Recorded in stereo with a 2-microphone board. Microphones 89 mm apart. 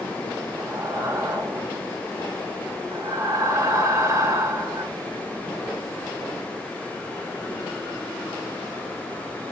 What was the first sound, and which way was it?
Breathing, 35° right (ahead or behind).